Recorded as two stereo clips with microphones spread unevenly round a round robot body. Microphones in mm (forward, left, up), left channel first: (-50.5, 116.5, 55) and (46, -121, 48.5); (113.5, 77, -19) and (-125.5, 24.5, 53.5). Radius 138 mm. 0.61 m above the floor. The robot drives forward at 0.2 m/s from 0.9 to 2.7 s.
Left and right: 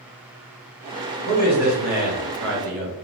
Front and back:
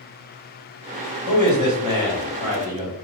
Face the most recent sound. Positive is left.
turn(degrees=-100)